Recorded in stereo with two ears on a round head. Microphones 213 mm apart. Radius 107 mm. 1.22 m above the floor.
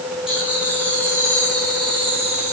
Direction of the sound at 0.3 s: 5° right (ahead or behind).